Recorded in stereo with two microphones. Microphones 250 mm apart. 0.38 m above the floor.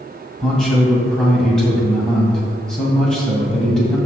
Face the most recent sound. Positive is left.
turn(degrees=0)  # may be behind; listen again after turning